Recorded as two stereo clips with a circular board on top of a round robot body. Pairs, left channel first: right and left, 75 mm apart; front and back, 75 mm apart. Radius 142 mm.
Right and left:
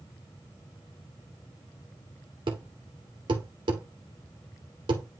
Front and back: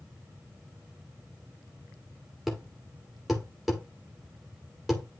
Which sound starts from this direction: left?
A thud, at 2.5 s.